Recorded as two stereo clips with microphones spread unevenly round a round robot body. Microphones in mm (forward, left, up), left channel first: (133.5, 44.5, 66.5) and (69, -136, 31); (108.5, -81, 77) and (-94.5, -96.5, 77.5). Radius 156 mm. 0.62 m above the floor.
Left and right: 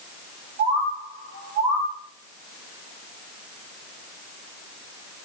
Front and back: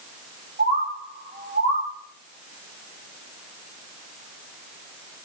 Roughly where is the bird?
Behind right.